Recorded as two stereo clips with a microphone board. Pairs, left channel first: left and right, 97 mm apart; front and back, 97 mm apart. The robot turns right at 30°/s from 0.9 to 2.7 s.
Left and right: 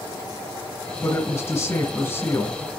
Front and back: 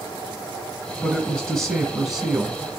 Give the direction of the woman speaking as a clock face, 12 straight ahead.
10 o'clock.